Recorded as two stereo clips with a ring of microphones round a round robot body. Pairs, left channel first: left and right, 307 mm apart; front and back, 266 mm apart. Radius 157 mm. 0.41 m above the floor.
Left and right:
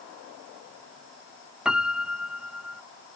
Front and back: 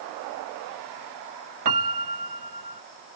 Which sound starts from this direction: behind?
A piano, at 1.6 s.